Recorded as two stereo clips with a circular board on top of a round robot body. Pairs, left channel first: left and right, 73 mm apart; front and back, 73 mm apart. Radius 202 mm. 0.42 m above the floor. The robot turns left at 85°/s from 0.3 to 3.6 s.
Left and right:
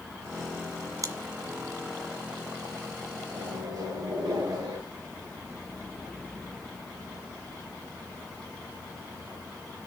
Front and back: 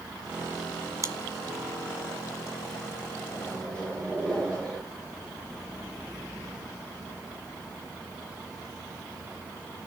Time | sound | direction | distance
1.0 | chewing | 130° right | 1.1 m
3.3 | a microwave | 50° right | 9 m